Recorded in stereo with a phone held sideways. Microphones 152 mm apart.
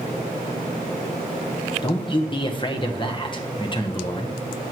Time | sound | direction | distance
1.8 | a man speaking | 35° left (ahead or behind) | 0.9 m